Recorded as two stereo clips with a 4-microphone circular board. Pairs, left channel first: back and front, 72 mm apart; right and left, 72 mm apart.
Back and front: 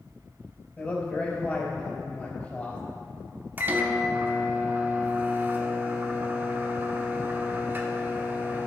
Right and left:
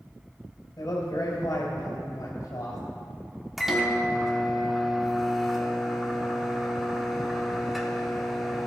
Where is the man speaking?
115° right, 3 m.